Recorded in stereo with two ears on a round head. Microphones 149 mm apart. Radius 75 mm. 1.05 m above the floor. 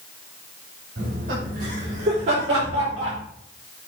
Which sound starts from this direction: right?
Laughter, at 1.0 s.